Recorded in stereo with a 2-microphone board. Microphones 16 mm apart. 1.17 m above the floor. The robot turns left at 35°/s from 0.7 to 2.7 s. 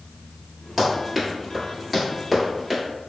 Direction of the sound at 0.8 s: 10° right (ahead or behind).